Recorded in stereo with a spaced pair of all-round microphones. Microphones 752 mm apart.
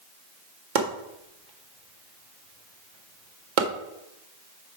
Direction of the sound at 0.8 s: 80° right.